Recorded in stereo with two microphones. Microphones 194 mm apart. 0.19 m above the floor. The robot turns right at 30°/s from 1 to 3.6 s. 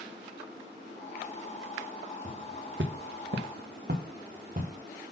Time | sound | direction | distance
2.2 | footsteps | 40° right (ahead or behind) | 1.0 m